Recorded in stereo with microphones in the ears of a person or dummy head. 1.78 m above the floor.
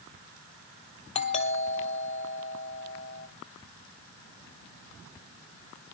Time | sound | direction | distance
1.1 | a doorbell | 35° left (ahead or behind) | 1.8 m